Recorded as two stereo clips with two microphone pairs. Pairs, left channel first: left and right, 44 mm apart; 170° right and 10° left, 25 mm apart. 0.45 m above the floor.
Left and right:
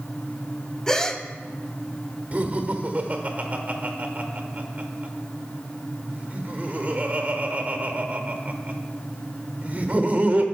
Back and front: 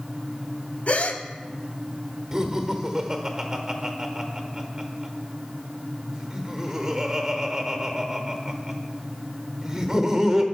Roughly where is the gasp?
Behind.